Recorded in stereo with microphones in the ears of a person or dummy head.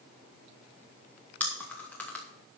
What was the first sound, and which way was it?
Chewing, 10° left (ahead or behind).